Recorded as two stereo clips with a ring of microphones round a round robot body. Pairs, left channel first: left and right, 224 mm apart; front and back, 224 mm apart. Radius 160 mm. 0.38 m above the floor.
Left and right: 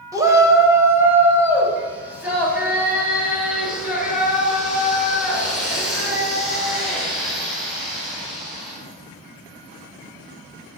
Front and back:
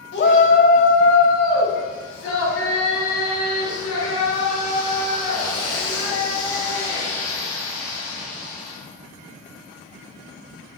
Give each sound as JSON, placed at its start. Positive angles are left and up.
{"t": 0.1, "sound": "a shout", "azimuth_deg": -20, "distance_m": 1.7}